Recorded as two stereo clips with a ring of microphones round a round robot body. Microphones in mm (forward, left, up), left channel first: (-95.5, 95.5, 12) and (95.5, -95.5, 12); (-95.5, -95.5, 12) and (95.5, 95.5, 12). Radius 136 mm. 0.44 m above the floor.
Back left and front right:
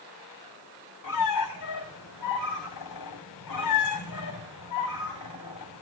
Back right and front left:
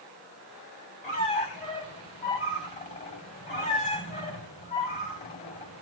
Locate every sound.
1.0 s a squeak: 160° left, 3.5 m